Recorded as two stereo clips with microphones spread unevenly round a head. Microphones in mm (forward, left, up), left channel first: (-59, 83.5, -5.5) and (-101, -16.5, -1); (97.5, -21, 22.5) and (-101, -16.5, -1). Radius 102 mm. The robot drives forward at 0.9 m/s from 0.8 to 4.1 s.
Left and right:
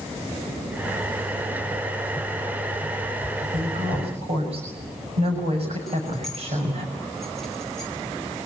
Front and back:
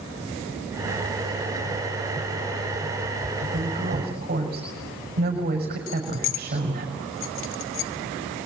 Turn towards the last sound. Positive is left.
turn(degrees=-20)